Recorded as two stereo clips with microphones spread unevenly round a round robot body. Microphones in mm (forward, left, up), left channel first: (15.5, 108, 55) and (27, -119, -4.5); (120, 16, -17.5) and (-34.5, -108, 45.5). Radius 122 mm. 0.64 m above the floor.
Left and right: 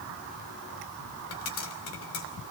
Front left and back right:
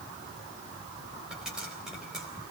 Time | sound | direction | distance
1.3 | a pop | 125° left | 3.5 m